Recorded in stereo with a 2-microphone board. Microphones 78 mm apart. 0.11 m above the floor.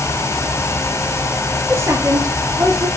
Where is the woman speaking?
30° right (ahead or behind), 2 m; by 2.9 s 55° right (ahead or behind), 3 m.